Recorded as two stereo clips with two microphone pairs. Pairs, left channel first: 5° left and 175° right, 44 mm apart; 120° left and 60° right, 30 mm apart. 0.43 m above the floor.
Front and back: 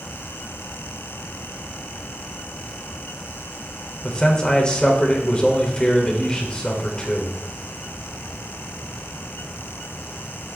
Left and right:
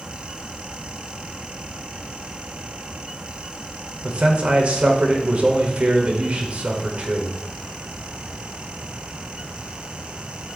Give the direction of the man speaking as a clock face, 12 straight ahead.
2 o'clock.